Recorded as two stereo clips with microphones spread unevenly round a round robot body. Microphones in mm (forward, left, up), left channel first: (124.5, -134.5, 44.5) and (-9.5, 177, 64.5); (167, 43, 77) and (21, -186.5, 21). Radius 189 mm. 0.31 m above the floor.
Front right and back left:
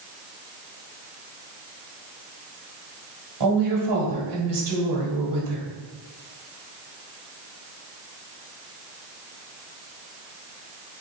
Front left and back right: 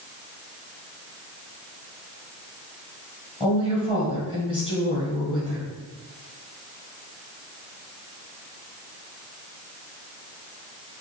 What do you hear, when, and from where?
3.4 s a woman speaking: 140° left, 1.6 m